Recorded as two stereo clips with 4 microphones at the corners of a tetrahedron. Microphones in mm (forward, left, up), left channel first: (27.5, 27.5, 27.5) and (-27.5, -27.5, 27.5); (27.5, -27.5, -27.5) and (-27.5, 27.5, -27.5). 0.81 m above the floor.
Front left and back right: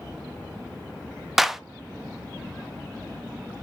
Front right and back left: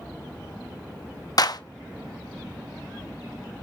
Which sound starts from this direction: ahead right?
A clap, at 1.4 s.